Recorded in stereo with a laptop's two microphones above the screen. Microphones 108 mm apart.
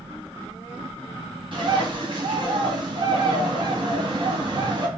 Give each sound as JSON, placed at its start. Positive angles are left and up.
{"t": 1.5, "sound": "a bird", "side_deg": -50, "distance_m": 1.6}